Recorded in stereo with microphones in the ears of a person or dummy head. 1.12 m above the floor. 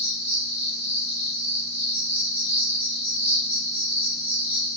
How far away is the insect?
About 1.7 m.